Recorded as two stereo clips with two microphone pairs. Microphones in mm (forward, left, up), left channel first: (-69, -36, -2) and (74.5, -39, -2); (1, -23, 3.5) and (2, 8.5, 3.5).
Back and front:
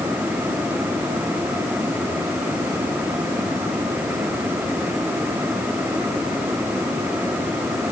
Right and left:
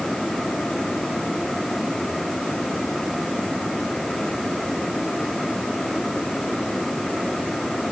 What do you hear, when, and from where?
Only background noise.